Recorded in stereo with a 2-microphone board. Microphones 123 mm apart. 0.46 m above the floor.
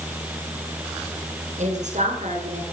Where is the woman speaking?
80° right, 5.5 m.